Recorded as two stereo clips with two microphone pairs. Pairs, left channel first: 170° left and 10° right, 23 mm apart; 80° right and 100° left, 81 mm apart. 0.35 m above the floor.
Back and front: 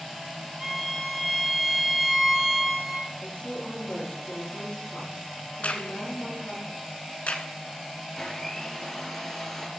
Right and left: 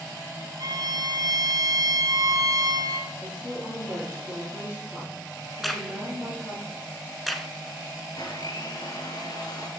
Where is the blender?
115° right, 1.4 m.